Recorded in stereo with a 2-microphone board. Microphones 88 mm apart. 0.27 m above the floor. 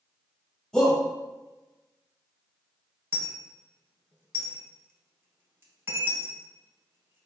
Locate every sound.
0.7 s a shout: 5° left (ahead or behind), 1.4 m
3.1 s a dropped coin: 25° right (ahead or behind), 0.8 m